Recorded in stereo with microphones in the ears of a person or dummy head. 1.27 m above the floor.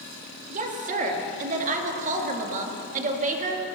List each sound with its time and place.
0.5 s a woman speaking: 40° right (ahead or behind), 1.8 m